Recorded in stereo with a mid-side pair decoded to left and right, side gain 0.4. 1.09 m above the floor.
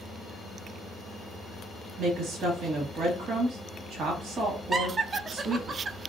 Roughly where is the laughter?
Ahead right.